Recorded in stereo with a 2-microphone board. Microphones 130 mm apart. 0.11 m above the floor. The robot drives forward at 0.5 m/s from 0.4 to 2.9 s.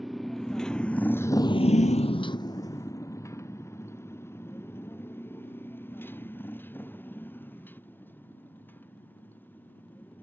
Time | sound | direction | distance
0.0 | a motorcycle | centre (ahead or behind) | ?